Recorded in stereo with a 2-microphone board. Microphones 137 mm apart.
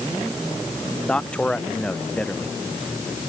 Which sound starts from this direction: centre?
A man speaking, at 1.1 s.